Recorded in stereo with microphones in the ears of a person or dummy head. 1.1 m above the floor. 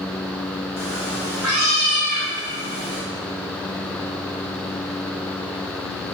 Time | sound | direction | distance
0.8 | a cat meowing | centre (ahead or behind) | 1.0 m